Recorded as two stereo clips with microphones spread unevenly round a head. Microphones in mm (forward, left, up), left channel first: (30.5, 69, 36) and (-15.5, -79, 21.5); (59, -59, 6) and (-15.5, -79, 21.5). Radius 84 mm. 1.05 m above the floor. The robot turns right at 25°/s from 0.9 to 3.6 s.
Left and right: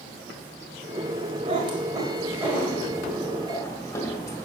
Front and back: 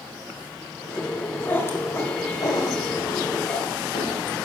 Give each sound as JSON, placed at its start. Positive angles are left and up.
{"t": 1.4, "sound": "a cat meowing", "azimuth_deg": -50, "distance_m": 1.8}